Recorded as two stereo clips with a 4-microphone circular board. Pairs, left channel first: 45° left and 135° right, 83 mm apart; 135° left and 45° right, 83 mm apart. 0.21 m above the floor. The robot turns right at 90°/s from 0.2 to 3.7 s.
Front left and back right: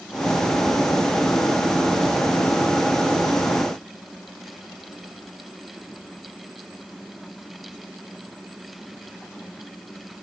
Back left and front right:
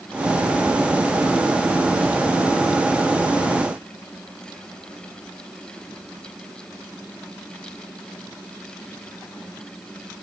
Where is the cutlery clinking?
No cutlery clinking in this recording.